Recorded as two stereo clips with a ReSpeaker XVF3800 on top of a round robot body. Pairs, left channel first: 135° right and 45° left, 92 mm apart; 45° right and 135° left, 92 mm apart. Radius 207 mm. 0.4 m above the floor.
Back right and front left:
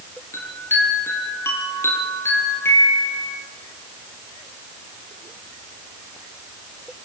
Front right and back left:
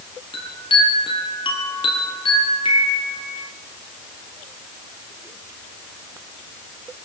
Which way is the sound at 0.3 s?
70° right.